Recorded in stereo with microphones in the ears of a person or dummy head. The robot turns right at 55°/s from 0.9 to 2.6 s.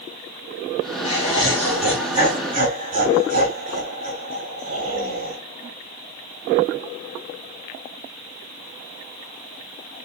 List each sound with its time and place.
1.0 s laughter: 140° left, 3.5 m; by 5.4 s 135° right, 3.5 m